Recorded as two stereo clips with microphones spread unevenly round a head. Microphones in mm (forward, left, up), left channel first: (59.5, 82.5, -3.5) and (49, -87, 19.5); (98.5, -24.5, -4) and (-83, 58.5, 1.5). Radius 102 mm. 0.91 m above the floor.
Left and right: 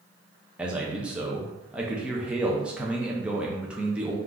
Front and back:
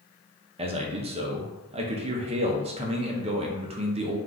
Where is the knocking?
I don't hear knocking.